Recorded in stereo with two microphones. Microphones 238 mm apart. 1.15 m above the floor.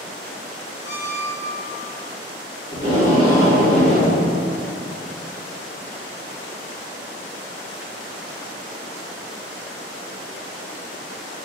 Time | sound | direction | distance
0.8 | a squeak | 15° right (ahead or behind) | 1.7 m
2.7 | tape being pulled | 20° right (ahead or behind) | 1.7 m